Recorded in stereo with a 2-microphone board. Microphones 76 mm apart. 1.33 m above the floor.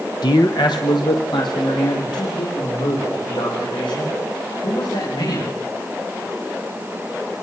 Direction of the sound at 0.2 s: 65° left (ahead or behind).